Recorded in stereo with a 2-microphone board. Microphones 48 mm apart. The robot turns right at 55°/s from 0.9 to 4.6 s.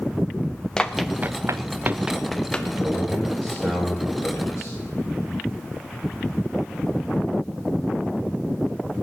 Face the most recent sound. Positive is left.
turn(degrees=70)